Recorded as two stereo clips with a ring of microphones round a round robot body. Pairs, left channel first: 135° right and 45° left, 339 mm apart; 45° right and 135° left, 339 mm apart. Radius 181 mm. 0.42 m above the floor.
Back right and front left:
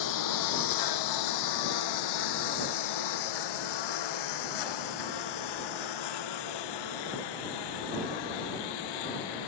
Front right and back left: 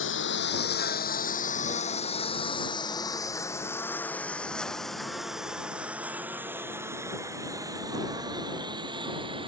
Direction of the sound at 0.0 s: 100° right.